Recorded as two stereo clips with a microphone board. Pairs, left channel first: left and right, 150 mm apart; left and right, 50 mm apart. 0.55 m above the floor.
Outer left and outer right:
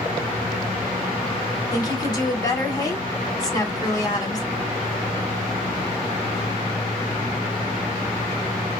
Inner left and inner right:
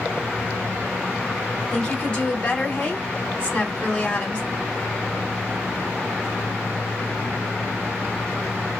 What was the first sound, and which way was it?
A woman speaking, 25° left (ahead or behind).